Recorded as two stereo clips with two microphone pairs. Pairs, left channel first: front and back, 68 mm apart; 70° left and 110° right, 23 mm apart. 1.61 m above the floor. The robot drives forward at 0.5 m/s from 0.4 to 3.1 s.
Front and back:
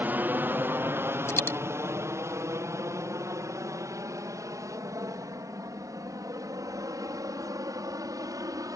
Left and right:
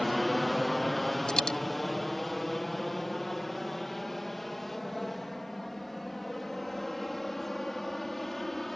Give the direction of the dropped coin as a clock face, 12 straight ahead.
11 o'clock.